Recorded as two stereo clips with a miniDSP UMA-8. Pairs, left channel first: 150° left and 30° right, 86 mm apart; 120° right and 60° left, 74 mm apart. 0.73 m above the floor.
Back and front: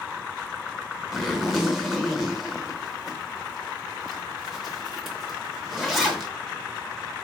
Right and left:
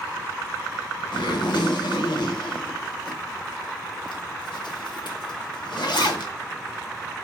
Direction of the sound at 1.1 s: 120° right.